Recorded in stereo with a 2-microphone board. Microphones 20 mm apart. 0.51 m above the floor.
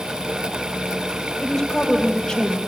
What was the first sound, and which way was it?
A woman speaking, 35° left (ahead or behind).